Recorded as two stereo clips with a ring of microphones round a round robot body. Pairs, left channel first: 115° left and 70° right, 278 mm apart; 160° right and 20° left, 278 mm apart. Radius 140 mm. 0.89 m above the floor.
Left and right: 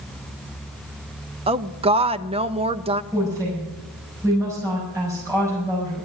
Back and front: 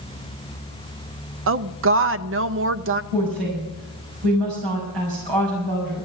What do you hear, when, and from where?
1.5 s a woman speaking: 5° right, 0.6 m
3.1 s a woman speaking: 15° left, 6 m